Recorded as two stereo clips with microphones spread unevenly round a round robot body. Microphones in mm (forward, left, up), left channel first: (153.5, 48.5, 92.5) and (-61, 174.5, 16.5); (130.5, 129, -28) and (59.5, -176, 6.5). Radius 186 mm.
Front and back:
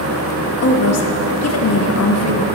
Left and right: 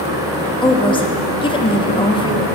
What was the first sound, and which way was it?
A woman speaking, 5° left.